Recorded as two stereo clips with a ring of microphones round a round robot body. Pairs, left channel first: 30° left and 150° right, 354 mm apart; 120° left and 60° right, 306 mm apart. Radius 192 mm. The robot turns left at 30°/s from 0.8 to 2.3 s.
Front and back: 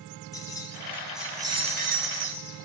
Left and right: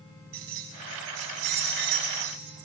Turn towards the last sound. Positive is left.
turn(degrees=-95)